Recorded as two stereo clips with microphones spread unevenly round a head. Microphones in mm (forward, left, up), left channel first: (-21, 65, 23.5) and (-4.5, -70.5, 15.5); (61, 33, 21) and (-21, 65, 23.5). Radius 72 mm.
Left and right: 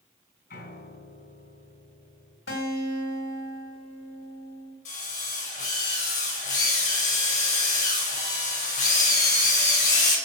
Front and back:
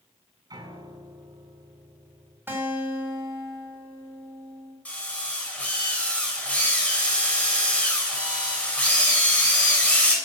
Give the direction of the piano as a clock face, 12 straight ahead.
8 o'clock.